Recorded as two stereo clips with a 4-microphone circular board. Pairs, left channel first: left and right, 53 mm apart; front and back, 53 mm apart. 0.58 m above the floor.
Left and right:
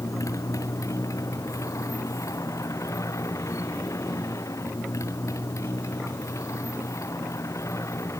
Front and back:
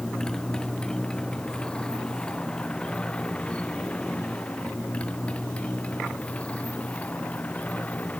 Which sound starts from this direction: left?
A motorcycle, at 0.0 s.